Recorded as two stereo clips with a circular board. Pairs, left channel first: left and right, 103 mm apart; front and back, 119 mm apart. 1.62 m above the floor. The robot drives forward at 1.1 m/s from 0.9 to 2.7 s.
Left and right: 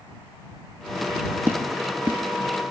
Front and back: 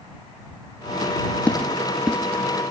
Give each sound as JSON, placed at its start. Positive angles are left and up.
{"t": 1.5, "sound": "footsteps", "azimuth_deg": -60, "distance_m": 1.7}